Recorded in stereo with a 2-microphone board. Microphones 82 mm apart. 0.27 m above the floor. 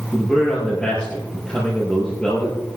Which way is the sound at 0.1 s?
10° left (ahead or behind).